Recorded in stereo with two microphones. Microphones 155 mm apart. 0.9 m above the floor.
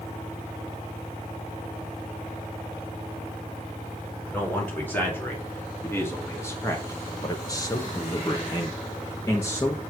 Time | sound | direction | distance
4.3 | a man speaking | 15° left (ahead or behind) | 2.5 m